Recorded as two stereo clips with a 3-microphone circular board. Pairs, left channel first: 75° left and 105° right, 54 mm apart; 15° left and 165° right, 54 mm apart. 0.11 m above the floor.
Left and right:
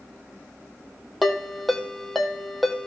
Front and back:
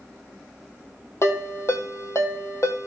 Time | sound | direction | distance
1.2 | a ringtone | 15° right | 2 m